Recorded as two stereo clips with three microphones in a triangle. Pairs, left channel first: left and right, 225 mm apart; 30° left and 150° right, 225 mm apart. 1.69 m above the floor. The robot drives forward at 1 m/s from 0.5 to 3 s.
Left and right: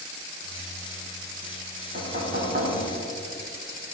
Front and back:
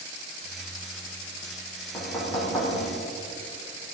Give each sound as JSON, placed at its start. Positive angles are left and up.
{"t": 1.9, "sound": "knocking", "azimuth_deg": -45, "distance_m": 6.0}